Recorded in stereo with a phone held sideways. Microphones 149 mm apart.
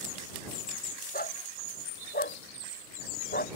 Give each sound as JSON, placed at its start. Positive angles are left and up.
{"t": 1.1, "sound": "a dog barking", "side_deg": 85}